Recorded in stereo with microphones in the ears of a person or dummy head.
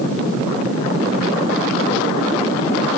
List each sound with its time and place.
Only background noise.